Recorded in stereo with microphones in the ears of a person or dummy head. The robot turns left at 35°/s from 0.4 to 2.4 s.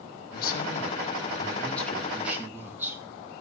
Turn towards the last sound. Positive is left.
turn(degrees=-10)